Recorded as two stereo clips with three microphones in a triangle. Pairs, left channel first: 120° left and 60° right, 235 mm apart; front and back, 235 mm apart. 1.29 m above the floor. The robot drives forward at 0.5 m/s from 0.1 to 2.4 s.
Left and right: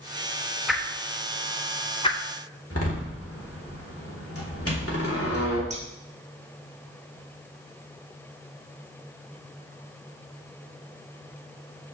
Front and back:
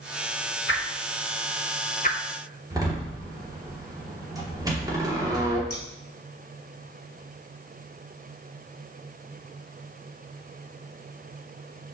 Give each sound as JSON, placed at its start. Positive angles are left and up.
{"t": 0.7, "sound": "a whoosh", "azimuth_deg": 30, "distance_m": 1.4}
{"t": 2.7, "sound": "a door slam", "azimuth_deg": 105, "distance_m": 2.5}
{"t": 5.7, "sound": "scissors", "azimuth_deg": 0, "distance_m": 1.8}